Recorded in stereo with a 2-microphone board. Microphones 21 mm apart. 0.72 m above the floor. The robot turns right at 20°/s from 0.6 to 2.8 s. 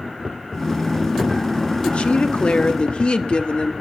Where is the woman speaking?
55° left (ahead or behind), 1.1 m; by 3.7 s 50° left (ahead or behind), 1.1 m.